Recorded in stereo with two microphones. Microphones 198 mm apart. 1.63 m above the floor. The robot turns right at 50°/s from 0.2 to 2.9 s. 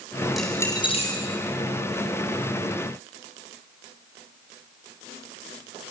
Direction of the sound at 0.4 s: Centre (ahead or behind).